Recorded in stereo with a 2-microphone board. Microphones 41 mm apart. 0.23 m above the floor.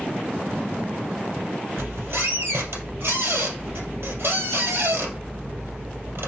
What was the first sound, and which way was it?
A squeak, 70° right (ahead or behind).